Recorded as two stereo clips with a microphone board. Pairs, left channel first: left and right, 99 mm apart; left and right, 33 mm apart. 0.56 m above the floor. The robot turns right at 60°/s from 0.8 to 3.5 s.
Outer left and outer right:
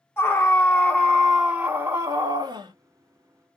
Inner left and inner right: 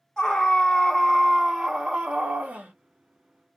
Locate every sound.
0.2 s a scream: 150° left, 1.6 m; by 2.7 s 95° right, 1.6 m